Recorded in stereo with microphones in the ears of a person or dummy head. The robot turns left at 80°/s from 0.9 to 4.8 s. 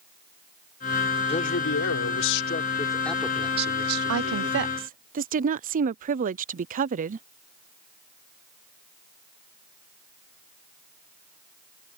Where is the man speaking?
150° left; by 4.8 s 130° right.